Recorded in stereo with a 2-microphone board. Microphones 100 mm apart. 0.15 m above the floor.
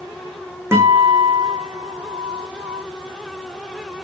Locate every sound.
0.7 s a guitar: 25° right (ahead or behind), 3 m